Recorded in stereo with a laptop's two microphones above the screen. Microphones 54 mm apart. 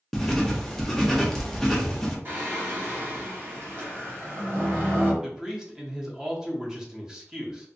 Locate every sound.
0.1 s writing: 5° left (ahead or behind), 0.7 m
2.2 s singing: 45° right (ahead or behind), 0.9 m
5.2 s a man speaking: 10° right (ahead or behind), 0.8 m